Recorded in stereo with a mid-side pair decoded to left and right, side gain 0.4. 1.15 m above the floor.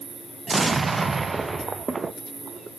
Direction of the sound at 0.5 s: 30° right.